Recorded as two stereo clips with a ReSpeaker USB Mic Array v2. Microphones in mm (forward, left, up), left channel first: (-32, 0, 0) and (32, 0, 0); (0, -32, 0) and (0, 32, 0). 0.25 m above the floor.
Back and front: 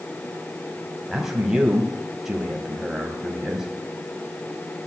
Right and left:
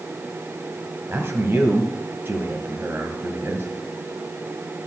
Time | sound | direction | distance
1.1 | a man speaking | 80° left | 1.8 m